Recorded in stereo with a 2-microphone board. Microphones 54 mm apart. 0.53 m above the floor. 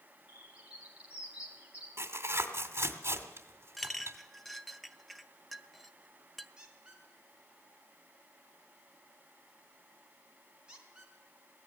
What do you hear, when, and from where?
0.3 s a bird: 20° right (ahead or behind), 5.5 m
2.0 s tearing paper: 50° right (ahead or behind), 2 m
3.8 s a clink: centre (ahead or behind), 0.8 m
6.6 s a squeak: 15° right (ahead or behind), 4 m